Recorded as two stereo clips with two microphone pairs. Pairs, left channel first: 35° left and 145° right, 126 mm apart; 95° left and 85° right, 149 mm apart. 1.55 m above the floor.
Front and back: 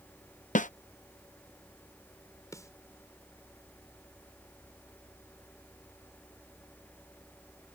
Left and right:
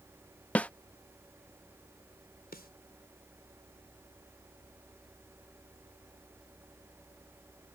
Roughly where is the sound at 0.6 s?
Ahead.